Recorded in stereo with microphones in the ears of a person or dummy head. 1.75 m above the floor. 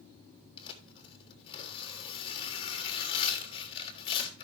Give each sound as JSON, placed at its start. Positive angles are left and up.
{"t": 0.6, "sound": "tearing paper", "side_deg": 25, "distance_m": 3.0}